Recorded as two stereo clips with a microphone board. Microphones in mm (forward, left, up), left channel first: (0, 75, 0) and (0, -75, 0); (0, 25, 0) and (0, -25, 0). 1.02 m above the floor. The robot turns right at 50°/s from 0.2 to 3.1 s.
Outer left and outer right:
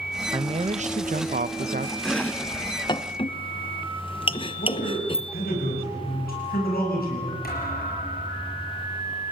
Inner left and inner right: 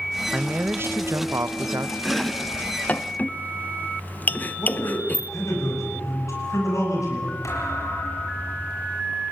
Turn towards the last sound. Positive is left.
turn(degrees=80)